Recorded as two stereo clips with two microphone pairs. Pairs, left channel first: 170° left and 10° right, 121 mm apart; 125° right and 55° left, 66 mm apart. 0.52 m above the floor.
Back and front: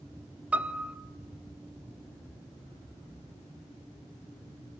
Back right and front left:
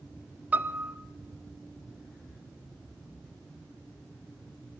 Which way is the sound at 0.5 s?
55° left.